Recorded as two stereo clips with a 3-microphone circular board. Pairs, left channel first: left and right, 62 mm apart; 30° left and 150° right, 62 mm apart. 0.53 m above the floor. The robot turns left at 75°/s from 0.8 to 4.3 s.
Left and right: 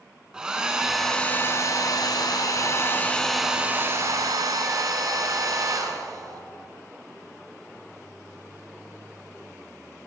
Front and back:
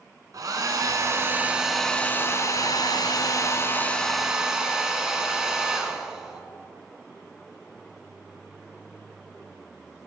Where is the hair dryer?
165° right, 1.2 m; by 6.4 s 70° right, 1.2 m.